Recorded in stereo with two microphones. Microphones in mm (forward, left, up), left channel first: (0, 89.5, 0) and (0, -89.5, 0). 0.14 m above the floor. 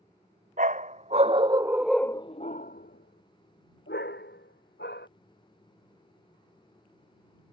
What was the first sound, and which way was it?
A dog barking, 50° right (ahead or behind).